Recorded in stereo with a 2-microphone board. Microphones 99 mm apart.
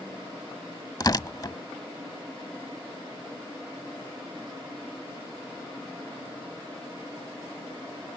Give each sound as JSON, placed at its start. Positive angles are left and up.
{"t": 1.0, "sound": "tearing paper", "side_deg": 40}